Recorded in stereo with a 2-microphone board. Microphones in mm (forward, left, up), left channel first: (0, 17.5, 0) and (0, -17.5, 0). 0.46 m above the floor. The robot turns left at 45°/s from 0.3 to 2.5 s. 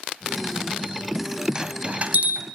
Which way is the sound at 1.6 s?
25° right (ahead or behind).